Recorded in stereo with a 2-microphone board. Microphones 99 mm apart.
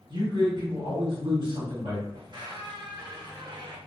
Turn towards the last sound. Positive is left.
turn(degrees=-45)  # may be behind; listen again after turning